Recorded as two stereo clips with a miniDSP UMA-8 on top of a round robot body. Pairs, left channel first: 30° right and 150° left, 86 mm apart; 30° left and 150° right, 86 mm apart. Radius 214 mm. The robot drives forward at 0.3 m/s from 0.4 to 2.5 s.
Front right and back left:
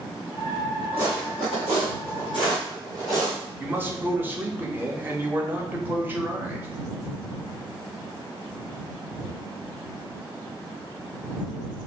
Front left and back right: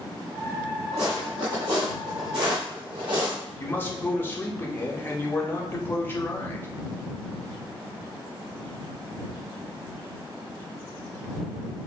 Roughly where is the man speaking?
Left.